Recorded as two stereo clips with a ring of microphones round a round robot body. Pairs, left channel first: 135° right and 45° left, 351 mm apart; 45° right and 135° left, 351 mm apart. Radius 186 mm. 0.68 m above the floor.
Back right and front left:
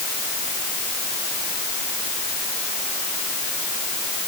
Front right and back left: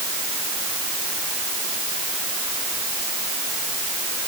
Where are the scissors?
No scissors in this recording.